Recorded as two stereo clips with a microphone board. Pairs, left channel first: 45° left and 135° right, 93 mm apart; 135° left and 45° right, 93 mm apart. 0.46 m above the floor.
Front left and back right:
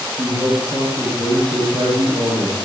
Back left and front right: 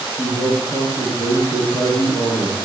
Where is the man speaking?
155° right, 9.5 m.